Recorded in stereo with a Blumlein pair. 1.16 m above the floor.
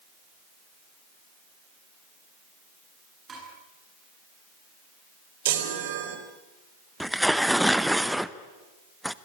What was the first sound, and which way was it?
Dishes clattering, 20° right.